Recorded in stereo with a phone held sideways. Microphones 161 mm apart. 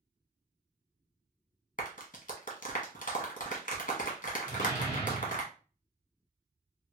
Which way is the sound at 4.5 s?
40° left (ahead or behind).